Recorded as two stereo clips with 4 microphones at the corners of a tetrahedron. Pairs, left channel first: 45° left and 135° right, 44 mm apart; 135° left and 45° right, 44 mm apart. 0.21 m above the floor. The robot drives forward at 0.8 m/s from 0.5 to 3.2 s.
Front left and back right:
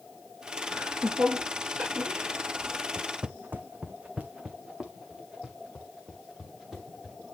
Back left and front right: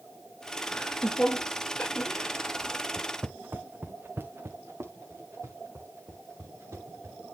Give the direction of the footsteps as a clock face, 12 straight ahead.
3 o'clock.